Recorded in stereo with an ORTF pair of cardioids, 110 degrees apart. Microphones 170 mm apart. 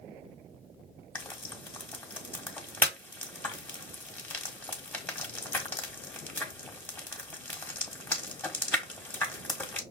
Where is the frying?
10° left, 1.2 m.